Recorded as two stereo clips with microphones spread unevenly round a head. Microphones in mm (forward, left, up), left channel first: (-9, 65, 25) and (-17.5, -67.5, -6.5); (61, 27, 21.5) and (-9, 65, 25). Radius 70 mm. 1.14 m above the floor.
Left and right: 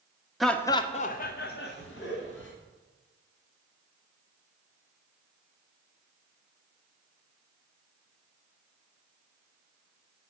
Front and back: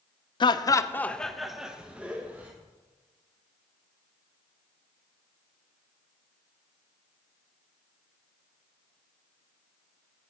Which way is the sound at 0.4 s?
10° right.